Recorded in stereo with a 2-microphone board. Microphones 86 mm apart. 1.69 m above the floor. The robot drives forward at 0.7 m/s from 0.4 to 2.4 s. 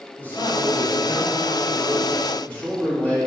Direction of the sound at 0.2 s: 20° left (ahead or behind).